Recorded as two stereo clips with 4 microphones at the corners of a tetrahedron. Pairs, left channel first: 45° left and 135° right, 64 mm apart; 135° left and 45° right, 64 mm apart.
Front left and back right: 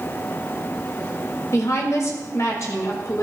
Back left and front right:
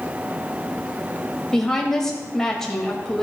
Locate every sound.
1.5 s a woman speaking: 55° left, 2.5 m